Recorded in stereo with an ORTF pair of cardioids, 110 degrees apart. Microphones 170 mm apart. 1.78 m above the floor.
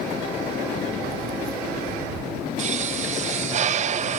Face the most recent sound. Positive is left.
turn(degrees=-45)